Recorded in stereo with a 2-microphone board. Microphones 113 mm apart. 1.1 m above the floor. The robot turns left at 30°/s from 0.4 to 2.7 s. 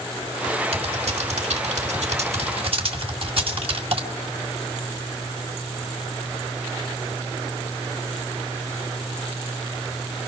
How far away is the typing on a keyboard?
About 2 m.